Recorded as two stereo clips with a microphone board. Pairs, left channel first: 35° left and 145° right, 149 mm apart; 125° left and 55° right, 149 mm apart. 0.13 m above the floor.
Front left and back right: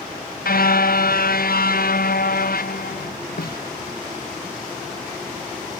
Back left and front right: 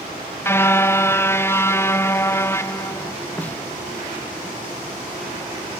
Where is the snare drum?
45° left.